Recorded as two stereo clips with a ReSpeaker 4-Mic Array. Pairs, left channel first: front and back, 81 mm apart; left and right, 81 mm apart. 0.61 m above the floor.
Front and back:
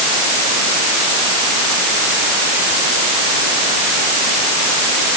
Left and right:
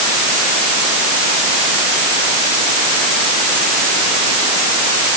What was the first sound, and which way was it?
Only background noise.